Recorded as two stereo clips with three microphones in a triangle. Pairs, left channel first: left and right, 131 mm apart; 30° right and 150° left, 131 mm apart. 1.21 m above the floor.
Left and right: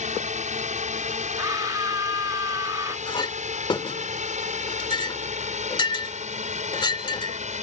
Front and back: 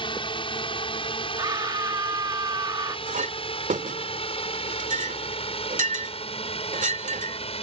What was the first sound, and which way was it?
A drone, 75° right.